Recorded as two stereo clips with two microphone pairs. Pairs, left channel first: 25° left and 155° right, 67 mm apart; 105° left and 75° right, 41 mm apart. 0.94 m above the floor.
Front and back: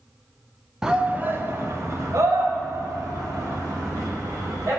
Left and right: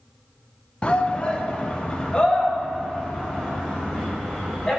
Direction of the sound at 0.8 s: 130° left.